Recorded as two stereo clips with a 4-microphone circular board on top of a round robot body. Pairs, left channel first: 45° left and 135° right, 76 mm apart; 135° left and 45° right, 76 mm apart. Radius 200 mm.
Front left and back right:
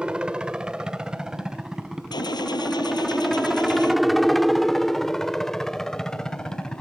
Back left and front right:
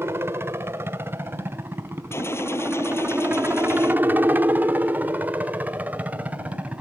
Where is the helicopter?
65° right; by 6.8 s 15° right.